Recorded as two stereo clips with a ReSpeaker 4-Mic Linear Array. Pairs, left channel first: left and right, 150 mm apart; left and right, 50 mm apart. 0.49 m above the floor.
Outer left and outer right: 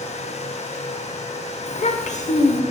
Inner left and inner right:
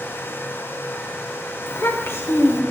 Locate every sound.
1.7 s a child speaking: 55° left (ahead or behind), 0.7 m